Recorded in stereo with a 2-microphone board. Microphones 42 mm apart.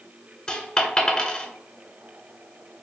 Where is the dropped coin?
20° left (ahead or behind), 0.5 m.